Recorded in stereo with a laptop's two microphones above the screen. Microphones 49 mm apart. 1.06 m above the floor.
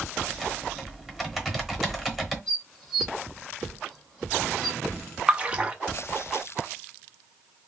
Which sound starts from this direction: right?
A splash, at 5.3 s.